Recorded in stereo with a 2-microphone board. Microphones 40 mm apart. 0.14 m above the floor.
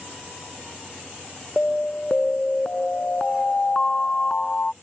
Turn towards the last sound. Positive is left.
turn(degrees=25)  # may be behind; listen again after turning